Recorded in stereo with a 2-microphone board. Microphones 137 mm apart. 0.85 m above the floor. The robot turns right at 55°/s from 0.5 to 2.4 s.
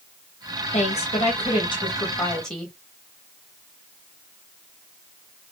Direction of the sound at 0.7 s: 80° left.